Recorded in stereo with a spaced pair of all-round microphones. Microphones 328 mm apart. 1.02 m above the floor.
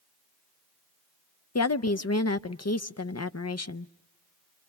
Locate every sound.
1.6 s a woman speaking: 55° left (ahead or behind), 0.6 m